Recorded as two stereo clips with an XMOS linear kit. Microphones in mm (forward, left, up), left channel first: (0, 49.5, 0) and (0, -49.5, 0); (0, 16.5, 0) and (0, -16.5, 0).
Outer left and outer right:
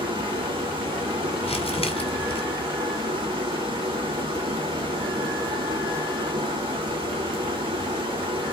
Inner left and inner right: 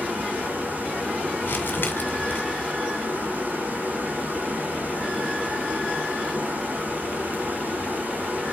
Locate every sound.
0.0 s running water: 65° right (ahead or behind), 7.5 m
1.4 s crumpling: 80° left, 1.9 m